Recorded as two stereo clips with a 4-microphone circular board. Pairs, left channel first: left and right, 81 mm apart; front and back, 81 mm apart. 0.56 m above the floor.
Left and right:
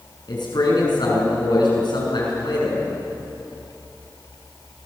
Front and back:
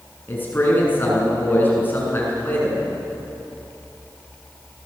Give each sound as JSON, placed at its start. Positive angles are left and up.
{"t": 0.3, "sound": "a man speaking", "azimuth_deg": 65, "distance_m": 7.5}